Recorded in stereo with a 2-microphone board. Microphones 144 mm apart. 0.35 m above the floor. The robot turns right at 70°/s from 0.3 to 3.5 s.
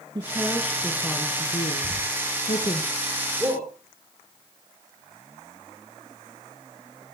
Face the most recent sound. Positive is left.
turn(degrees=-45)  # may be behind; listen again after turning